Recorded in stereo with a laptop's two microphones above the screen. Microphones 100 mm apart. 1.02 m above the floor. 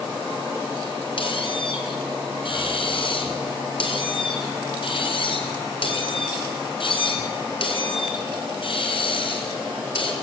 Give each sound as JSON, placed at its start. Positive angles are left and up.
{"t": 1.2, "sound": "a squeak", "side_deg": 60, "distance_m": 4.5}